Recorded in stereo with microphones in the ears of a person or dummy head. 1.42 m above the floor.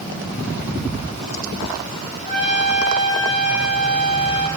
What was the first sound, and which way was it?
A trumpet, 5° right (ahead or behind).